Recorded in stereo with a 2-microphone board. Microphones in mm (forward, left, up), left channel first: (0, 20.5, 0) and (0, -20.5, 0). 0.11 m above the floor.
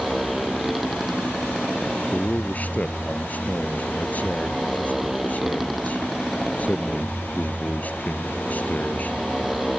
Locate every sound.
0.0 s a motorcycle: 5° right (ahead or behind)
2.1 s a man speaking: 40° left (ahead or behind)